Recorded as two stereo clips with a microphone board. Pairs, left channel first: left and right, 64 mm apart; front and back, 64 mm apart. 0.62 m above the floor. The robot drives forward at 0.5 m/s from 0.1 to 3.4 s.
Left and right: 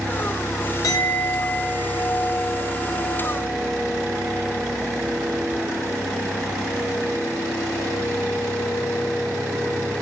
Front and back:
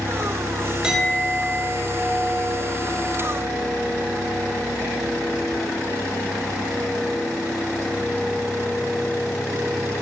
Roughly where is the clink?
Left.